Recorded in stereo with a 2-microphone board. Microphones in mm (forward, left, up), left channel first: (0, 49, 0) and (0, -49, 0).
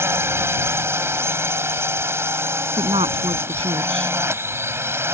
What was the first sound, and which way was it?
A drone, 25° right (ahead or behind).